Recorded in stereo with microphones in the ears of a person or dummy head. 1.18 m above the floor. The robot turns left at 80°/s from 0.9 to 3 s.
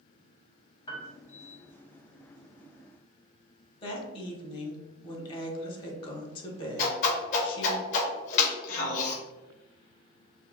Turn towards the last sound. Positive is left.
turn(degrees=50)  # may be behind; listen again after turning